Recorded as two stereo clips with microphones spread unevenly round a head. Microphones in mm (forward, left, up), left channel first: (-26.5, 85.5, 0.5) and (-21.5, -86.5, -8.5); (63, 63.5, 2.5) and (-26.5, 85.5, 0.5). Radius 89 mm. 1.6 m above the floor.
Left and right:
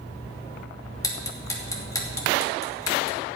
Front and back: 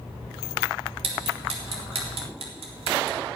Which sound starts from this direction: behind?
Ticking, at 1.0 s.